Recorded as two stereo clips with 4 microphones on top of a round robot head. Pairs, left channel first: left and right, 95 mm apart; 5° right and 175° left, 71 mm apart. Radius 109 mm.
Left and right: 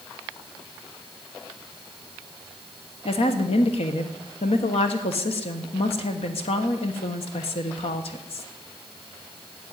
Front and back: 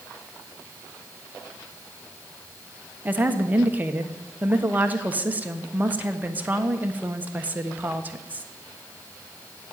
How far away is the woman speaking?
About 1.4 m.